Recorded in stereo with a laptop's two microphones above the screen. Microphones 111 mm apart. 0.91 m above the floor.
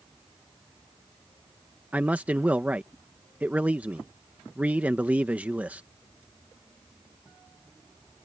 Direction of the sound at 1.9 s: 15° right (ahead or behind).